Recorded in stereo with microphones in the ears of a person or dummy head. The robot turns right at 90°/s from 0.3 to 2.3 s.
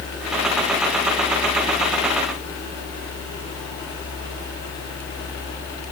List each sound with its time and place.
Only background noise.